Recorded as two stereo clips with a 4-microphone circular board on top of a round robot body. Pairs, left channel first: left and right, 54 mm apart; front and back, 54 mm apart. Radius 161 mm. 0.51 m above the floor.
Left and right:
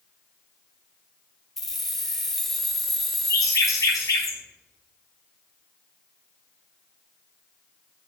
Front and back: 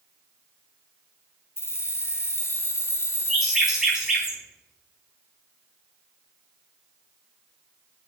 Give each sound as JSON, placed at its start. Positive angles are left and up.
{"t": 1.6, "sound": "keys jangling", "azimuth_deg": 5, "distance_m": 0.6}
{"t": 3.3, "sound": "a bird", "azimuth_deg": 100, "distance_m": 1.0}